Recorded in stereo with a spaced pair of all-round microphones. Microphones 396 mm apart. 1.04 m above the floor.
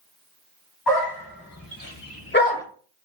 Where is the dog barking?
70° left (ahead or behind), 2.0 m; by 2.6 s 5° left (ahead or behind), 0.7 m.